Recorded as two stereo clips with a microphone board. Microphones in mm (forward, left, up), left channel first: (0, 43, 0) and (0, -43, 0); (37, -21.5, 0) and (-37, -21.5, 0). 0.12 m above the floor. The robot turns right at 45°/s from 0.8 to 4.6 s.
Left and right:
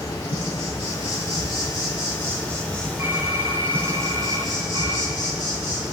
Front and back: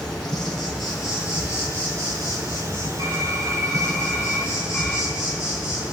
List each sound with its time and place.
0.0 s an insect: 85° left, 5 m; by 5.9 s 105° right, 5 m
3.0 s typing on a keyboard: 150° right, 1.7 m; by 5.1 s 75° right, 1.7 m